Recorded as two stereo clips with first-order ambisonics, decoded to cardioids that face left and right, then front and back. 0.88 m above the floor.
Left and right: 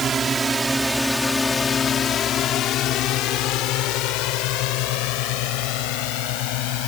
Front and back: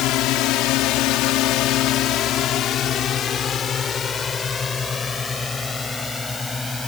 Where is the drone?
25° right; by 6.9 s 80° left.